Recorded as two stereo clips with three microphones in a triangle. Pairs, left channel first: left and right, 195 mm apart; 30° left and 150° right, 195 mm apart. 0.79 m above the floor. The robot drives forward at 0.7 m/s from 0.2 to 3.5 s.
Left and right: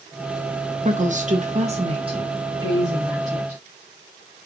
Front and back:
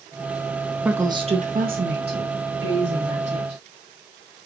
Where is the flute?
No flute in this recording.